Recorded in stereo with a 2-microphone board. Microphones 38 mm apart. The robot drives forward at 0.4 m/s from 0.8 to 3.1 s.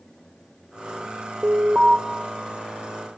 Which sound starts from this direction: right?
An alarm, at 1.4 s.